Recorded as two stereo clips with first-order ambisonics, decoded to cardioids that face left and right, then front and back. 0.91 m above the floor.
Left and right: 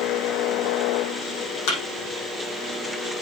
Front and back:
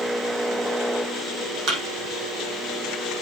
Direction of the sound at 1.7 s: 125° left.